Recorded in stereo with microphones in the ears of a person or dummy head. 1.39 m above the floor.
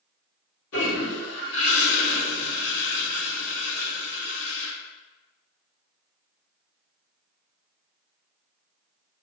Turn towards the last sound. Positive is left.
turn(degrees=50)  # may be behind; listen again after turning